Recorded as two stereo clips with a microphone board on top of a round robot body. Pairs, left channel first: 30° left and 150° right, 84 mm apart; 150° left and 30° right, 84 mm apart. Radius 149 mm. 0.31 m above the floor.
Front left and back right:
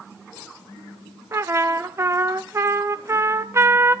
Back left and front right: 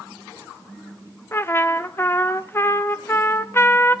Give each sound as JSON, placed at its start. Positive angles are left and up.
{"t": 1.3, "sound": "a trumpet", "azimuth_deg": -170, "distance_m": 0.9}